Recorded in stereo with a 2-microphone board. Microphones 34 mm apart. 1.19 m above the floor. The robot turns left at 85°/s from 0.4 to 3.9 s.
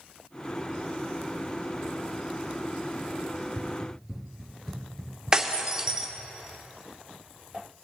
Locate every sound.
3.3 s running footsteps: 55° right (ahead or behind), 1.9 m; by 6.3 s 55° left (ahead or behind), 2 m
5.3 s breaking glass: 20° right (ahead or behind), 0.9 m